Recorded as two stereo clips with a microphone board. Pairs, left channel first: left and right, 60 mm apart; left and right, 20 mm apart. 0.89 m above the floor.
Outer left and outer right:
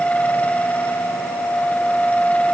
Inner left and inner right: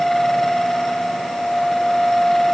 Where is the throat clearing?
I don't hear throat clearing.